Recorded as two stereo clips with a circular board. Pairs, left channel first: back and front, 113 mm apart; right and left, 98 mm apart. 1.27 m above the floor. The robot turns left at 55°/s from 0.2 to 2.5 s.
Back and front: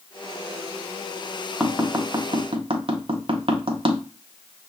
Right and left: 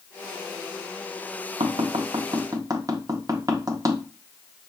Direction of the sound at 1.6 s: 85° left.